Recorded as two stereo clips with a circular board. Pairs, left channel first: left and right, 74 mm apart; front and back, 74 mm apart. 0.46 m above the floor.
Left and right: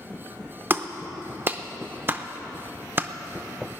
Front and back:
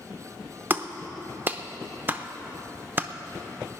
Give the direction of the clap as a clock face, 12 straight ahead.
4 o'clock.